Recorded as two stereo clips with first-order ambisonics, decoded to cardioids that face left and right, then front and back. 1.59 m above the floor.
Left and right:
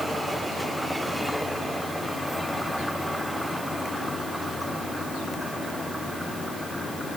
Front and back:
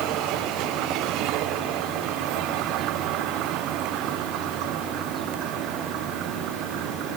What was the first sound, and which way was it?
Only background noise.